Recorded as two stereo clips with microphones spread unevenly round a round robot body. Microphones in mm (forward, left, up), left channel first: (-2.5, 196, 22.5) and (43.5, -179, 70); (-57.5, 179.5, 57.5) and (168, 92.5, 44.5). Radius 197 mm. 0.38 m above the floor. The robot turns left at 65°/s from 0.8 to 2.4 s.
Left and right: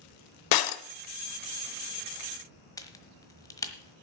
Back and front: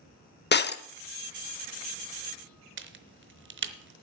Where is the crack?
20° left, 1.2 m.